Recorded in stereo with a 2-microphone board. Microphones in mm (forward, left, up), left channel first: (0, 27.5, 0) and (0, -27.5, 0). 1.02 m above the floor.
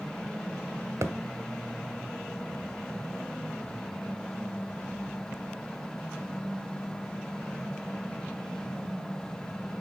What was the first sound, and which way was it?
A thud, 60° right (ahead or behind).